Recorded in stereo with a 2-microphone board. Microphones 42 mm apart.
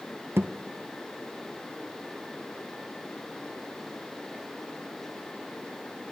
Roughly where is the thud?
Right.